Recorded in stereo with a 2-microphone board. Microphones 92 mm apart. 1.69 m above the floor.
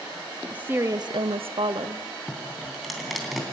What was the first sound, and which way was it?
A woman speaking, 15° right (ahead or behind).